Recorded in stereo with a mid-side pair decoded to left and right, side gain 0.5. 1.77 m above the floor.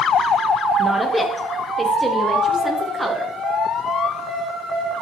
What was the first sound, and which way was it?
A woman speaking, straight ahead.